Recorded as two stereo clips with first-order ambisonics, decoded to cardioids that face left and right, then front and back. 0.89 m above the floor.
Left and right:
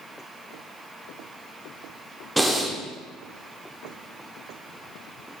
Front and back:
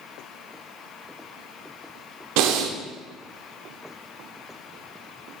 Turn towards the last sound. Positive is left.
turn(degrees=-175)